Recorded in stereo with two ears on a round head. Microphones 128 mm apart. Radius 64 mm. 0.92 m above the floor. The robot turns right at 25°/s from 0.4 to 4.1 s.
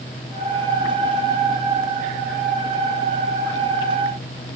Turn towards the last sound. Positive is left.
No sound to turn to.